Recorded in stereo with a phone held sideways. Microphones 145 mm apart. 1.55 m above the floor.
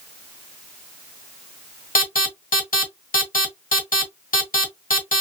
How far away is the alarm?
About 1.6 m.